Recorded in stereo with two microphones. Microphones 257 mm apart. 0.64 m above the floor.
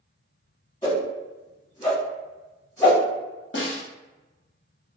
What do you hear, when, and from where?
0.8 s a whoosh: 15° left (ahead or behind), 1.3 m
3.5 s a snare drum: 50° left (ahead or behind), 0.7 m